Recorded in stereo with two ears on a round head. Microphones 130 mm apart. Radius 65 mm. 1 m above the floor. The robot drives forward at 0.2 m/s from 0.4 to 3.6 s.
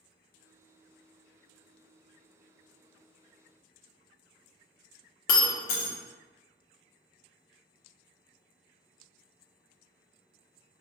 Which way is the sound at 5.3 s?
65° left (ahead or behind).